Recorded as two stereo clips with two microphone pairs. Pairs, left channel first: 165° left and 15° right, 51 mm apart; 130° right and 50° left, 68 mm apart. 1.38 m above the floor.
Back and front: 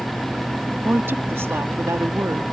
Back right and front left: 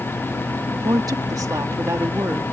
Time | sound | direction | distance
0.8 | a woman speaking | 25° left | ?